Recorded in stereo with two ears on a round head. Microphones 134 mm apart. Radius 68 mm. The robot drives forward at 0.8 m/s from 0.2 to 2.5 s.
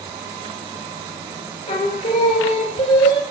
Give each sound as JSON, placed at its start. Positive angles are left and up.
{"t": 1.7, "sound": "singing", "side_deg": 45, "distance_m": 1.5}